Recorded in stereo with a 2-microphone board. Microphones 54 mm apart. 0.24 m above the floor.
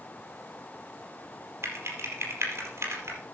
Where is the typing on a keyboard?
50° right (ahead or behind), 4.5 m.